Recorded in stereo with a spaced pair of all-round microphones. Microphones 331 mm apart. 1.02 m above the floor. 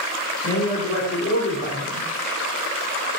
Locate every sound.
0.4 s a man speaking: 45° left (ahead or behind), 3.5 m